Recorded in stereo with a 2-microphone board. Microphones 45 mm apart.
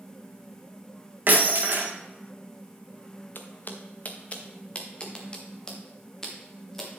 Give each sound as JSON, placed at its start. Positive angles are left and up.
{"t": 1.3, "sound": "breaking glass", "side_deg": -50, "distance_m": 3.0}
{"t": 3.4, "sound": "footsteps", "side_deg": 55, "distance_m": 1.5}